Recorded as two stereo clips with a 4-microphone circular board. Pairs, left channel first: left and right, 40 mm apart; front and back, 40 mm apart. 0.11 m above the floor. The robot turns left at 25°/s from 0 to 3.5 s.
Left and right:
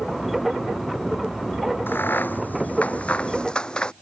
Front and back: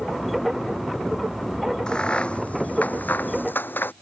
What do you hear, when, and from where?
1.9 s a crack: 65° left; by 3.9 s 25° left